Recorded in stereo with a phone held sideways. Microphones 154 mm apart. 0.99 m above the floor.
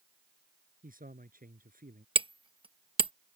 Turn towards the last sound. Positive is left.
turn(degrees=-35)  # may be behind; listen again after turning